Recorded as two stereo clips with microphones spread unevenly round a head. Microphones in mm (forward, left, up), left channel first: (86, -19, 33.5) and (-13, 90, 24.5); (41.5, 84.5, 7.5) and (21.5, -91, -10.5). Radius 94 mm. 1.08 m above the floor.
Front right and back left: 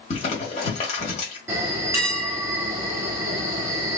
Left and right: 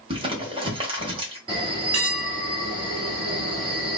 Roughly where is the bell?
Behind.